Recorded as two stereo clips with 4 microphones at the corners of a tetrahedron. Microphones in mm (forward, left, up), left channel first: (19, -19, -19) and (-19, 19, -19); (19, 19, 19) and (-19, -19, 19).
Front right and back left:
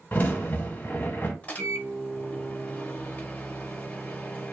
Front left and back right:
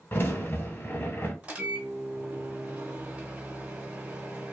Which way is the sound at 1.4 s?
90° right.